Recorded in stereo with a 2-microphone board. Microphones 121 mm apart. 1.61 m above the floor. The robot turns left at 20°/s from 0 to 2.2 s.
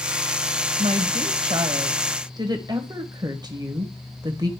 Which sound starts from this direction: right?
A woman speaking, at 0.8 s.